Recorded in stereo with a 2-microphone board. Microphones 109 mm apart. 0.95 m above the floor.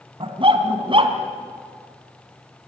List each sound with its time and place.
0.2 s a dog barking: 50° right (ahead or behind), 2.5 m